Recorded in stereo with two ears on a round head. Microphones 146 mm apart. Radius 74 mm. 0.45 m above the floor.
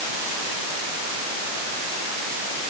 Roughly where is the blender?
I don't hear a blender.